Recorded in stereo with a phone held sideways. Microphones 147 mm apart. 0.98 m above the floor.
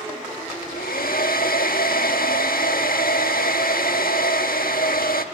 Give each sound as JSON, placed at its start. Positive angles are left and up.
{"t": 0.5, "sound": "a hair dryer", "side_deg": 80, "distance_m": 1.4}